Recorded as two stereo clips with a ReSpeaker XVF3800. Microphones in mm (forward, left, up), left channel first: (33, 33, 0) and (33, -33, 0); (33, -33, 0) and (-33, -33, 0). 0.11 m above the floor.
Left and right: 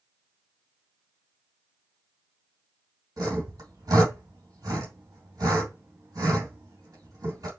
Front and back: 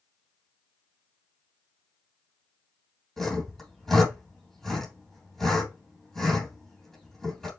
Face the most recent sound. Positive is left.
turn(degrees=-85)